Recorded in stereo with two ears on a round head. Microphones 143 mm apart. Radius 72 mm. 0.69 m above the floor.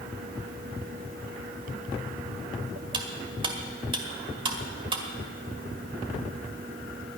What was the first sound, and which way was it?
Cutlery clinking, 30° right (ahead or behind).